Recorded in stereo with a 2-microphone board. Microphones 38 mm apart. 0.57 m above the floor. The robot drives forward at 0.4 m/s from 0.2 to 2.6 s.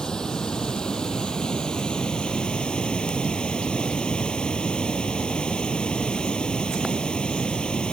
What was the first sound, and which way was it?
Running water, 15° left (ahead or behind).